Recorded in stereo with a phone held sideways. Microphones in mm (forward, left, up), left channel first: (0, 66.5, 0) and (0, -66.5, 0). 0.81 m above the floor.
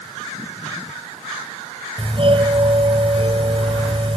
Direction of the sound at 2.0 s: 45° right (ahead or behind).